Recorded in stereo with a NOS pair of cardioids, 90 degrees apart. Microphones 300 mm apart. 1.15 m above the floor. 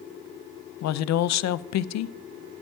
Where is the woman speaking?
60° left, 0.6 m.